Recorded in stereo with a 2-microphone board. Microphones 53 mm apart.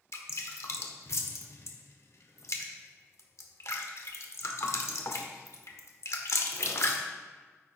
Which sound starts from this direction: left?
Dripping, at 0.1 s.